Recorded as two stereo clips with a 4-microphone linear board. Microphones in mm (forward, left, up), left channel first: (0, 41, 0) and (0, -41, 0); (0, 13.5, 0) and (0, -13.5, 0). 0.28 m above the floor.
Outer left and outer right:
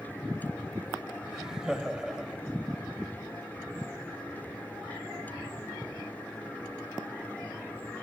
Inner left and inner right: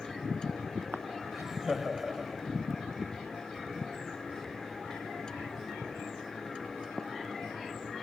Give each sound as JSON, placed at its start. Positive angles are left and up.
{"t": 1.3, "sound": "laughter", "side_deg": -5, "distance_m": 1.0}